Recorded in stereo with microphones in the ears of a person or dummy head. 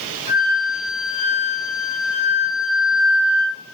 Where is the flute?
30° left (ahead or behind), 1.2 m.